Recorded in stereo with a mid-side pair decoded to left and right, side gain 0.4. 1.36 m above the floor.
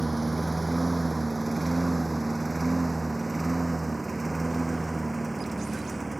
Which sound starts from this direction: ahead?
A lawn mower, at 0.0 s.